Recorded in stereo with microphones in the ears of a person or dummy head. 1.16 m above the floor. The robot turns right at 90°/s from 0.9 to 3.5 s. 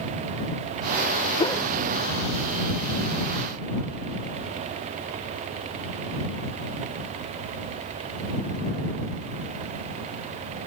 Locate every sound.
1.4 s a whoosh: 20° left (ahead or behind); by 1.6 s centre (ahead or behind)